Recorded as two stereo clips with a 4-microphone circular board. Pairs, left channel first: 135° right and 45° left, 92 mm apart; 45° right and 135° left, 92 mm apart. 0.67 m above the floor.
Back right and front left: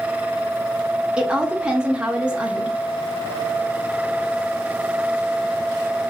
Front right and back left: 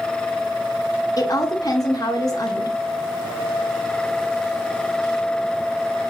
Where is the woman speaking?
30° right, 0.7 m.